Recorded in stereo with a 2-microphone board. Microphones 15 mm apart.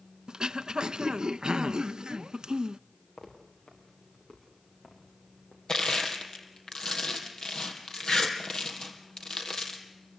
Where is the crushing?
55° left (ahead or behind), 3.5 m.